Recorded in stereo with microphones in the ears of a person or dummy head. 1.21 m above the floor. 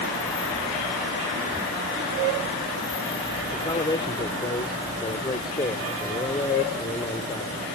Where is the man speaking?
25° left (ahead or behind).